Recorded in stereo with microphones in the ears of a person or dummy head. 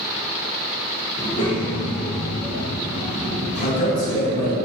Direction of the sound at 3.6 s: 45° left (ahead or behind).